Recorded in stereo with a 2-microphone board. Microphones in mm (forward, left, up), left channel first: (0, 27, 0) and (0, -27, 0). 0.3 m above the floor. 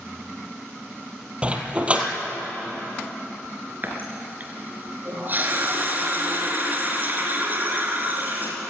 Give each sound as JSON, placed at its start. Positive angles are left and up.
{"t": 1.4, "sound": "a dog barking", "side_deg": -25, "distance_m": 2.5}
{"t": 3.8, "sound": "a running tap", "side_deg": -35, "distance_m": 3.5}